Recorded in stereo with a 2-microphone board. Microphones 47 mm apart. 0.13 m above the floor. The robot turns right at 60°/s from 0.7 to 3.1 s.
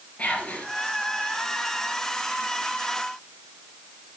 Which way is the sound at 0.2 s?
25° left (ahead or behind).